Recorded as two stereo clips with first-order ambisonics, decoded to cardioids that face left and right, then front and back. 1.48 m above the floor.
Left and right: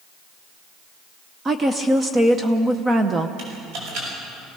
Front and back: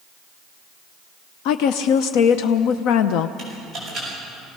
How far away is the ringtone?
No ringtone in this recording.